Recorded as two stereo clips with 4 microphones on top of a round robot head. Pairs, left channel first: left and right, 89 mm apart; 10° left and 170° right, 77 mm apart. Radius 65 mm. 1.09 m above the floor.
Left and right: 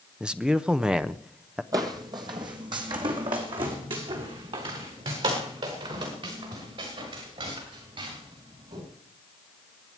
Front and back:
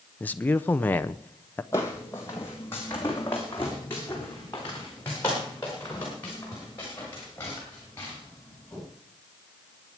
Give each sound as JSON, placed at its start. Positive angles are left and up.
{"t": 0.2, "sound": "a man speaking", "azimuth_deg": -20, "distance_m": 0.6}
{"t": 1.7, "sound": "footsteps", "azimuth_deg": -60, "distance_m": 1.5}